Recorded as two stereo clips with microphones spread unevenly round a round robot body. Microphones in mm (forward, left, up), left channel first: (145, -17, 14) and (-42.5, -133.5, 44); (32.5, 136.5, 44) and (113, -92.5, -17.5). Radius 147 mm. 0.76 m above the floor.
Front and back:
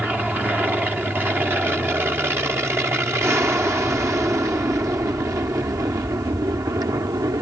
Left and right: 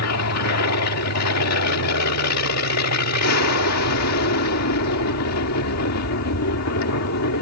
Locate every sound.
0.0 s an aircraft: 125° left; by 7.4 s 135° left